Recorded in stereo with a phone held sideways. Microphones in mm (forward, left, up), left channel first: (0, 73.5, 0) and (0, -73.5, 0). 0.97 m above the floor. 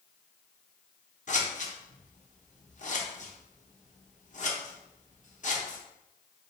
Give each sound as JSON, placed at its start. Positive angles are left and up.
{"t": 1.3, "sound": "scissors", "side_deg": 55, "distance_m": 0.9}